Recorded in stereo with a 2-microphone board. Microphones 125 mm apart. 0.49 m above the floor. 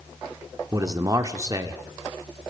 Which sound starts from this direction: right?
A man speaking, at 0.7 s.